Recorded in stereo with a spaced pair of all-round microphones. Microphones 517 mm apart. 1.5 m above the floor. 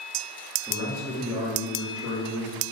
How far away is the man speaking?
About 1.0 m.